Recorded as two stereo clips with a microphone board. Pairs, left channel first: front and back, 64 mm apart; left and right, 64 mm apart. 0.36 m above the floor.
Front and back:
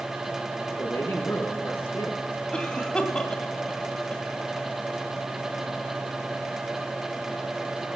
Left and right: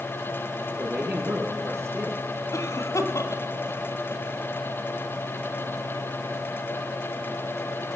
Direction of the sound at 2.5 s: 75° left.